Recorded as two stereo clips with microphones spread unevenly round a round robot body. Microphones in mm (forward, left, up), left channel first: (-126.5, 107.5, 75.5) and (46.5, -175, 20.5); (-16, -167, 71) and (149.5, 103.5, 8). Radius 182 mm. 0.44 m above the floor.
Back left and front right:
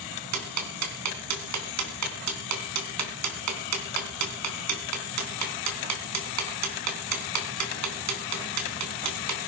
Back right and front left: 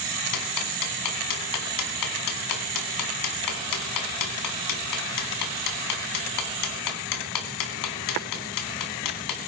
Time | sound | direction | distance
0.3 | ticking | 95° right | 3 m